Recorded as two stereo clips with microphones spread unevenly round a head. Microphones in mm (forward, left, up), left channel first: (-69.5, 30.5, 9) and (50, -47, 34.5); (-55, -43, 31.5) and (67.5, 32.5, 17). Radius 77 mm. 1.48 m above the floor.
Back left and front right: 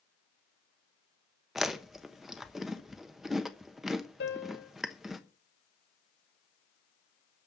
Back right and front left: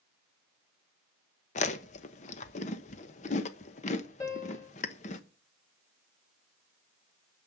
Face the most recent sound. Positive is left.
turn(degrees=145)